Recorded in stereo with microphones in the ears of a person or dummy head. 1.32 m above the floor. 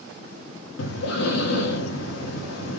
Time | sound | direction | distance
0.8 | breathing | 70° left (ahead or behind) | 1.0 m